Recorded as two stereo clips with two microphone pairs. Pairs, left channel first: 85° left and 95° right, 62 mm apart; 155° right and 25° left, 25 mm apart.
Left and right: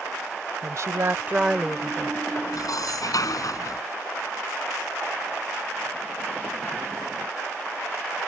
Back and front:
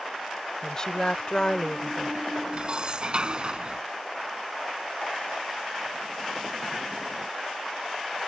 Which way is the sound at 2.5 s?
75° left.